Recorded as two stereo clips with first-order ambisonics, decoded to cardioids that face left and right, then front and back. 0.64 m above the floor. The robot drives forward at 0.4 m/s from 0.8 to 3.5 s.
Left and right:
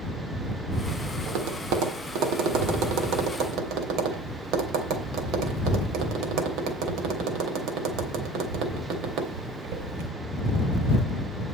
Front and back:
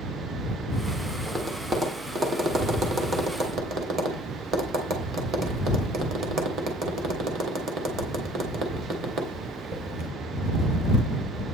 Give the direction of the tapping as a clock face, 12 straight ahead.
3 o'clock.